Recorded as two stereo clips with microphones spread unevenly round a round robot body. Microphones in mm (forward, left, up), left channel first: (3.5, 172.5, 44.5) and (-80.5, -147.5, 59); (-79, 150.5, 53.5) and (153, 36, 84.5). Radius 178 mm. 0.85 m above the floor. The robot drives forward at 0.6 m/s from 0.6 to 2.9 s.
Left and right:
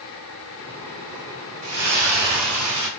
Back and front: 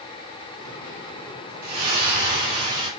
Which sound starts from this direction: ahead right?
A splash, at 1.6 s.